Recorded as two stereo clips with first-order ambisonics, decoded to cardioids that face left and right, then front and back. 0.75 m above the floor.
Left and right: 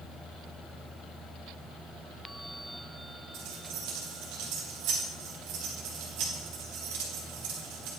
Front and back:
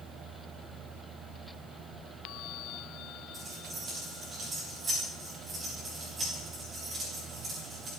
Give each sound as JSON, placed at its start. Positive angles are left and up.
{"t": 3.3, "sound": "keys jangling", "azimuth_deg": -110, "distance_m": 4.5}